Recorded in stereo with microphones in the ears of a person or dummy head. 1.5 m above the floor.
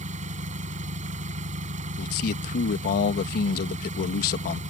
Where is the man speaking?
50° left (ahead or behind).